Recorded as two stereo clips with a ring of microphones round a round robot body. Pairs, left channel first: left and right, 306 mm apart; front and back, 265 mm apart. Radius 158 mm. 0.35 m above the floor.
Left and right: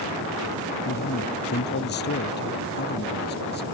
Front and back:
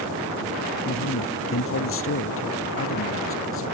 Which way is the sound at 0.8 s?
35° left.